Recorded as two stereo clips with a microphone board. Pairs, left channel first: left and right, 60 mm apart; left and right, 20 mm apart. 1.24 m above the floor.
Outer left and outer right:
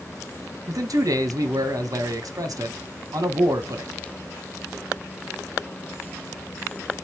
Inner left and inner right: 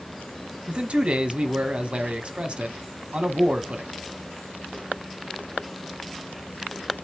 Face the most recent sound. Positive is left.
turn(degrees=-75)  # may be behind; listen again after turning